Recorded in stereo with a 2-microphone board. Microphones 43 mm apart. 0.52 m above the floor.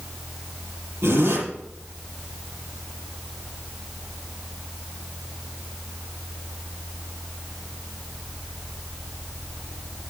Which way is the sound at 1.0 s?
70° right (ahead or behind).